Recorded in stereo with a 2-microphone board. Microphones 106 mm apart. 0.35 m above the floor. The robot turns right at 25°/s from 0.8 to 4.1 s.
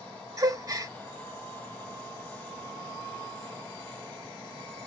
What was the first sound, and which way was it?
A gasp, 35° right (ahead or behind).